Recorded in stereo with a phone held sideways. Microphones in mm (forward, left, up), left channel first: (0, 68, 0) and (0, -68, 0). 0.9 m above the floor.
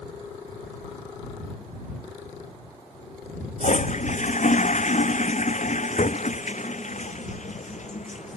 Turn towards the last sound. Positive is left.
turn(degrees=60)  # may be behind; listen again after turning